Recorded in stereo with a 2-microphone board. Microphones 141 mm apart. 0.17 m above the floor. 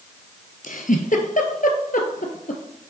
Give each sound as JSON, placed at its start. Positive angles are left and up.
{"t": 0.6, "sound": "a giggle", "side_deg": 70, "distance_m": 1.0}